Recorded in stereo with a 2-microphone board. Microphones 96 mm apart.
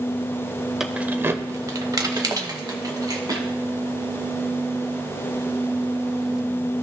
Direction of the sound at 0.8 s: 5° right (ahead or behind).